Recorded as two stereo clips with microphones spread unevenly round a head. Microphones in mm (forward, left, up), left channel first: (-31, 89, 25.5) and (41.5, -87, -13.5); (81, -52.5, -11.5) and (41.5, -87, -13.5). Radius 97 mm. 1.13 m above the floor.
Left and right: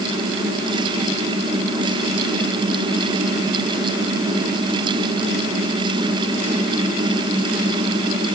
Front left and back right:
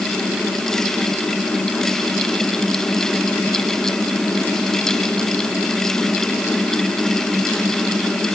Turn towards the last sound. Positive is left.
No sound to turn to.